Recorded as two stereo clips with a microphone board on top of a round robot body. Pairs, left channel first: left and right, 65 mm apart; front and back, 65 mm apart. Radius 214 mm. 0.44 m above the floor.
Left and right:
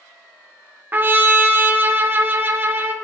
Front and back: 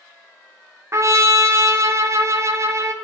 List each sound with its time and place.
0.9 s a trumpet: 145° right, 0.9 m